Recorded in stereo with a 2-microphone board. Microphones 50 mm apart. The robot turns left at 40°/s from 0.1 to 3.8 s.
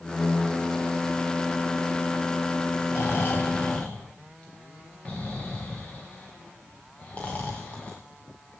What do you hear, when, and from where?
2.9 s snoring: 65° left (ahead or behind), 3.5 m; by 8.0 s 25° left (ahead or behind), 3.5 m